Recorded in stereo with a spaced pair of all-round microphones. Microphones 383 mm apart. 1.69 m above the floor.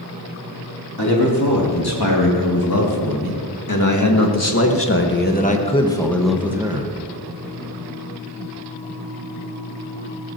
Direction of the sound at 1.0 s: 70° left (ahead or behind).